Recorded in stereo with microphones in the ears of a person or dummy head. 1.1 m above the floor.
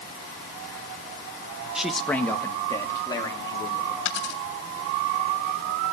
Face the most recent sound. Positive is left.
turn(degrees=75)  # may be behind; listen again after turning